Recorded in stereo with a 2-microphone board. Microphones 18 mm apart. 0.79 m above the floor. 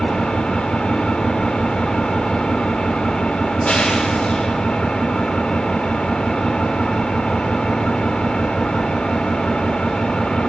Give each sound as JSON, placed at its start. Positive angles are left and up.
{"t": 0.0, "sound": "an engine running", "side_deg": 80, "distance_m": 1.8}